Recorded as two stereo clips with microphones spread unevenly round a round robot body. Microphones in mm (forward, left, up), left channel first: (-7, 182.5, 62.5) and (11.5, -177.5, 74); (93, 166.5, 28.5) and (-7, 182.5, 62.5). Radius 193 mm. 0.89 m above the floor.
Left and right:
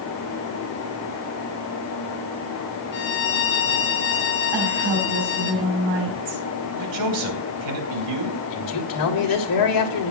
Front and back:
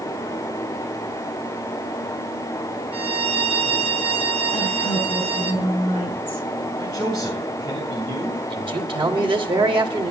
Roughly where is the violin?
Behind left.